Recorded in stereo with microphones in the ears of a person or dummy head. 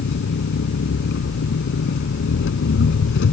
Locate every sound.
0.0 s an engine running: 60° left (ahead or behind)